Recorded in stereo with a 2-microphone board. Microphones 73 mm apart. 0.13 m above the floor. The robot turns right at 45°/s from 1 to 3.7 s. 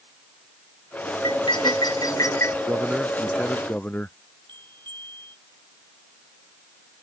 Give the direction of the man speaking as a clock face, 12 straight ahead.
1 o'clock.